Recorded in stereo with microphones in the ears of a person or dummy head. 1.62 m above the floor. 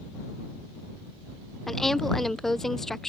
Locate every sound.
1.7 s a woman speaking: 5° left (ahead or behind)